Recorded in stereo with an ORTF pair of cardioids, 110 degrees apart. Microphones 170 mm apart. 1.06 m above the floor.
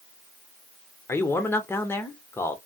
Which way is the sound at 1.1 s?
15° left.